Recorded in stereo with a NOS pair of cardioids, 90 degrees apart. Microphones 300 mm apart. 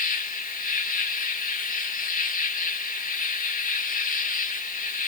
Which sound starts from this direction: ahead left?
An insect, at 0.0 s.